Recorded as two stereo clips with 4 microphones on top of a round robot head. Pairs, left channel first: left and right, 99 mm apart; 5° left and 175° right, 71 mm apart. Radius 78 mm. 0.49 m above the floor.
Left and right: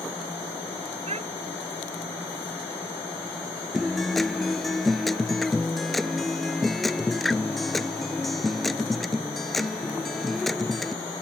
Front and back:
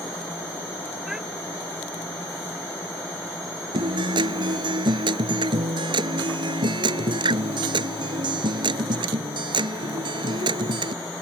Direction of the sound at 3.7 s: Straight behind.